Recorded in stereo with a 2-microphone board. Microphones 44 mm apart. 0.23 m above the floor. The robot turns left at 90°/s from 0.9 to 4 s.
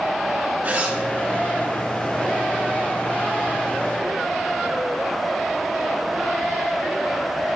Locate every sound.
0.6 s a zipper: 40° right (ahead or behind), 3.5 m; by 1.0 s 45° right (ahead or behind), 3.5 m